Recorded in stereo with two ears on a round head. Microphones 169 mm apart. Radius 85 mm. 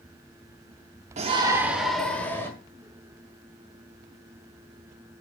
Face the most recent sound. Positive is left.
turn(degrees=15)  # may be behind; listen again after turning